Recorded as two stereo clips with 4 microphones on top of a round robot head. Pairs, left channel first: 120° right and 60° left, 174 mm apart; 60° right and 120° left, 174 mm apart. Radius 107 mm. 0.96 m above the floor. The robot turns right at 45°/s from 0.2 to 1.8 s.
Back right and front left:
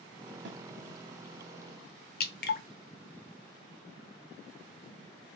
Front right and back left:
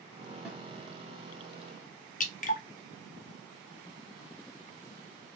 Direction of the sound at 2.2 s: 100° right.